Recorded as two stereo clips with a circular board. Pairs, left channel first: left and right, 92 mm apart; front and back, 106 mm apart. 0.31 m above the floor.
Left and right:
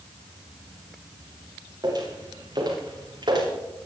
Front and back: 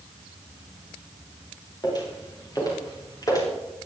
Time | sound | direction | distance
1.8 | footsteps | 50° right | 8.5 m